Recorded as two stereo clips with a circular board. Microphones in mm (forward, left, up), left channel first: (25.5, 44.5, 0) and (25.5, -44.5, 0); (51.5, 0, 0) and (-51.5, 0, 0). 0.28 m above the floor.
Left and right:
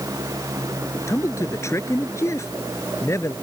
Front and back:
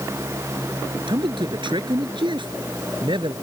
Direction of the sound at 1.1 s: 145° left.